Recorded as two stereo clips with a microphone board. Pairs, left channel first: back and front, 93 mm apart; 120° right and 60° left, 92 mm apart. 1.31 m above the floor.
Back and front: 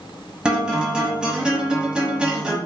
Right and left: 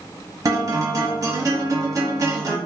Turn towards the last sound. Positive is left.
turn(degrees=75)